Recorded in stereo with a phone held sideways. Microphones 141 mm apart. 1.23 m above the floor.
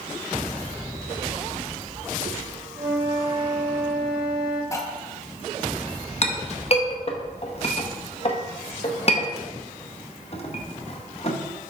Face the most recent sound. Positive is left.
turn(degrees=45)  # may be behind; listen again after turning